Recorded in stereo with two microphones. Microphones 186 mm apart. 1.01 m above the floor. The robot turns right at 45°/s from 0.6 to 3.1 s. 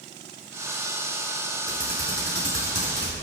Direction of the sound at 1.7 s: 50° right (ahead or behind).